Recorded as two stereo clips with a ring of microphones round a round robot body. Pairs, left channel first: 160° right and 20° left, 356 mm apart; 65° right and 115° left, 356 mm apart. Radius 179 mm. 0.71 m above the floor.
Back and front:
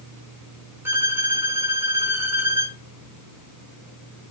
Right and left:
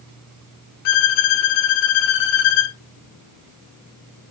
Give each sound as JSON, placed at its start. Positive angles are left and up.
{"t": 0.8, "sound": "a violin", "azimuth_deg": -60, "distance_m": 0.5}